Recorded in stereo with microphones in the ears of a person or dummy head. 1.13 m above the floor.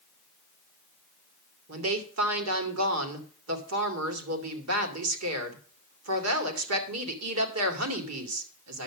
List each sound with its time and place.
1.7 s a woman speaking: 80° right, 2.5 m